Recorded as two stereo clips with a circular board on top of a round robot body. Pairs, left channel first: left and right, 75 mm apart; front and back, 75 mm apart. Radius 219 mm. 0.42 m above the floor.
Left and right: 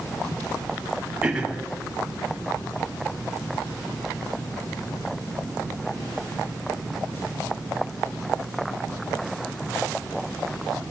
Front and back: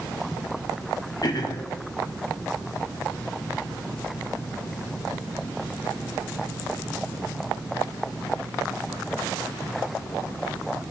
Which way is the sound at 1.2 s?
15° right.